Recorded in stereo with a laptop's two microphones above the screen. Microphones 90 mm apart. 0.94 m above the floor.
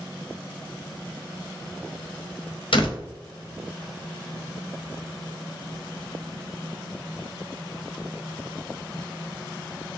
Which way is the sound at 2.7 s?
70° left (ahead or behind).